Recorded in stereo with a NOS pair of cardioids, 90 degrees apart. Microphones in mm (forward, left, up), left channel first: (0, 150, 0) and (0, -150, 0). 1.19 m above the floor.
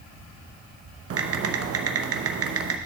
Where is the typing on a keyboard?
50° right, 1.0 m.